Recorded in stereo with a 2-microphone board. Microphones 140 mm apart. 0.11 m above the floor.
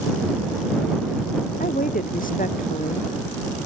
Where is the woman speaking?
80° left.